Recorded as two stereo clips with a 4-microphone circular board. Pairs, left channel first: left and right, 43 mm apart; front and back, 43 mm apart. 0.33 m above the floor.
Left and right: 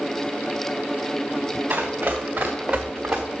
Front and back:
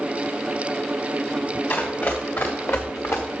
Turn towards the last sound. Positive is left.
turn(degrees=-15)